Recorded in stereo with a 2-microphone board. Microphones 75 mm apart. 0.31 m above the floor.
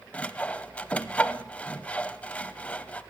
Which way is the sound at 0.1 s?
15° left (ahead or behind).